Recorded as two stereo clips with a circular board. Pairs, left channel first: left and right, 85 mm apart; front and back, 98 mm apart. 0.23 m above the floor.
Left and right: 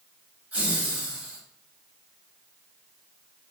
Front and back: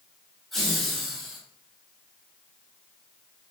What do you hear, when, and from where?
0.5 s laughter: 80° right, 1.2 m